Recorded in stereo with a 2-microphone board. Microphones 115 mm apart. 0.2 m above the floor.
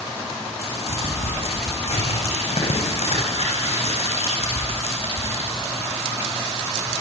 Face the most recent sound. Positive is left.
turn(degrees=60)  # may be behind; listen again after turning